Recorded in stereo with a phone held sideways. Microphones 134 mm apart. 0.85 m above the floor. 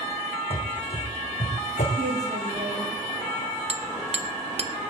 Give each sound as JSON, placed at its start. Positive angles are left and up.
{"t": 0.5, "sound": "running footsteps", "side_deg": 45, "distance_m": 2.5}
{"t": 2.0, "sound": "a woman speaking", "side_deg": -60, "distance_m": 8.0}
{"t": 3.7, "sound": "hammering", "side_deg": -50, "distance_m": 1.0}